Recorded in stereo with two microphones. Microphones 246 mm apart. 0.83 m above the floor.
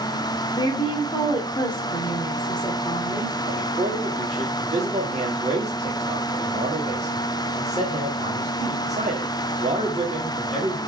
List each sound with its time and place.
0.6 s a woman speaking: 15° left (ahead or behind), 2 m
3.5 s a man speaking: 25° right (ahead or behind), 1.8 m